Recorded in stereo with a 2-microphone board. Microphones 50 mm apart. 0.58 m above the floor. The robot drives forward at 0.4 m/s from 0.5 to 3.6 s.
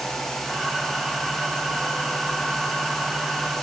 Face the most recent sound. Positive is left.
No sound to turn to.